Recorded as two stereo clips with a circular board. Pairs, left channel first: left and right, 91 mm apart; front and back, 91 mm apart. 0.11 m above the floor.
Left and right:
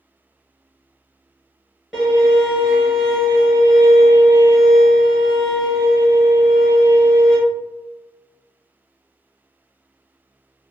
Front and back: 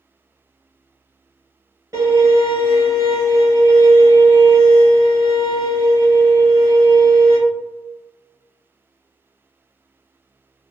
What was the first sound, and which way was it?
A violin, 175° right.